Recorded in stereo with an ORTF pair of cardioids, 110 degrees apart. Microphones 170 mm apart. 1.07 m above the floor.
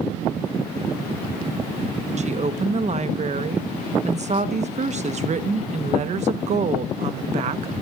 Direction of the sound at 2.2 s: 45° right.